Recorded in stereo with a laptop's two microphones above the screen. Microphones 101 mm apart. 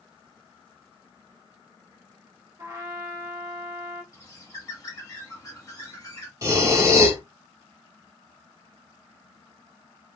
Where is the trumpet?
30° right (ahead or behind), 0.8 m.